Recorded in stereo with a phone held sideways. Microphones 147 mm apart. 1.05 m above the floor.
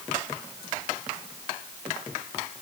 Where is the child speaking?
No child speaking in this recording.